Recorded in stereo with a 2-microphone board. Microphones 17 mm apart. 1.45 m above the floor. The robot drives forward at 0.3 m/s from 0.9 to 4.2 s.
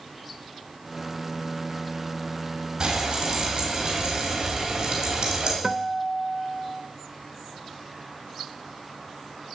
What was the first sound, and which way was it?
Frying, 40° right (ahead or behind).